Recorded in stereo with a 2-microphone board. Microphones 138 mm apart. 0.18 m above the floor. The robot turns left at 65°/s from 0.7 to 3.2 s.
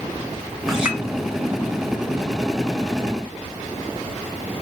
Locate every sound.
0.7 s a clink: centre (ahead or behind), 1.0 m; by 1.0 s 15° right (ahead or behind), 1.0 m